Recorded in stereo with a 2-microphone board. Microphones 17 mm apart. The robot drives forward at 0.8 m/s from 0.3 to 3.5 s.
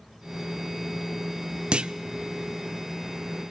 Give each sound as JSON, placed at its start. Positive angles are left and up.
{"t": 1.7, "sound": "a clunk", "side_deg": -65, "distance_m": 0.5}